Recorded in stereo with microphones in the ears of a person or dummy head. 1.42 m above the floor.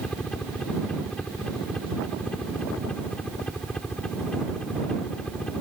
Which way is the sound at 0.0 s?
5° left (ahead or behind).